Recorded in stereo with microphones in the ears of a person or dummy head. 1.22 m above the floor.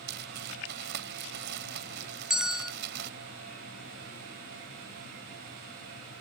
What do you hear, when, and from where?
0.1 s crumpling: 65° right (ahead or behind)
2.3 s a bell: 5° right (ahead or behind)